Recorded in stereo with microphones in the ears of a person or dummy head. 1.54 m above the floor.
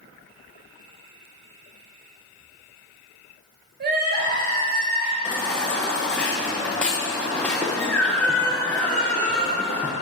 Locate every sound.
3.8 s crying: 45° right (ahead or behind), 1.3 m
5.2 s a baby crying: 5° left (ahead or behind), 0.7 m